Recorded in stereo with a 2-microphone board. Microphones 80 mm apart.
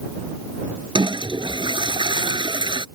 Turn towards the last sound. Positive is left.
turn(degrees=-70)  # may be behind; listen again after turning